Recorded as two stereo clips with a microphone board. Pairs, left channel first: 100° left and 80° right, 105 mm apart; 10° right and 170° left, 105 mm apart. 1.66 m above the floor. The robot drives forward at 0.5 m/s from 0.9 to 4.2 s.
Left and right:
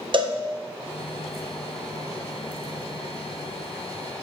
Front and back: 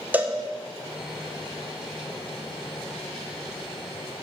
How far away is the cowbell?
About 1.1 m.